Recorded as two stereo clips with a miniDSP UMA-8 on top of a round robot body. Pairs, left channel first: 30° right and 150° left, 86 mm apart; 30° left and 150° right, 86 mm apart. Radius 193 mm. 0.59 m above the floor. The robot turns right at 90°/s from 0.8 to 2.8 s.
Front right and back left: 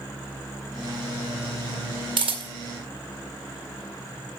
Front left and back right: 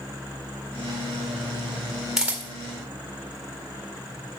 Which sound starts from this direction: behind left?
A camera shutter, at 2.2 s.